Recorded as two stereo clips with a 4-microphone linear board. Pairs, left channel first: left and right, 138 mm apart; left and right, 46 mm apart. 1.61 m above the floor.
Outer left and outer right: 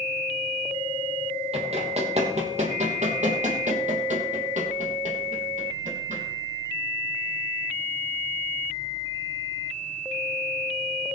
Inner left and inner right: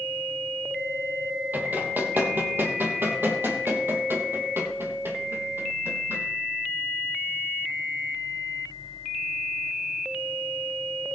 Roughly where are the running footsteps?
Right.